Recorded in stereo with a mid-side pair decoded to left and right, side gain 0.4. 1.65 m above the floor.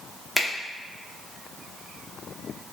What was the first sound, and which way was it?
A finger snap, straight ahead.